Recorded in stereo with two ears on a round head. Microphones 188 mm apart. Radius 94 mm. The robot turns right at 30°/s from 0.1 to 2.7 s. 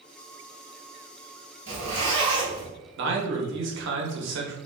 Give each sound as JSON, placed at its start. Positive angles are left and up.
{"t": 1.7, "sound": "a zipper", "azimuth_deg": -50, "distance_m": 1.8}
{"t": 3.0, "sound": "a man speaking", "side_deg": -65, "distance_m": 0.8}